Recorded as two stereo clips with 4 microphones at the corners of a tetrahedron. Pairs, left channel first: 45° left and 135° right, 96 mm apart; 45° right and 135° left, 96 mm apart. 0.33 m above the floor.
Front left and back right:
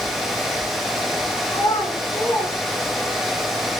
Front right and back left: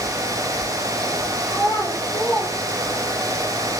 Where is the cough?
No cough in this recording.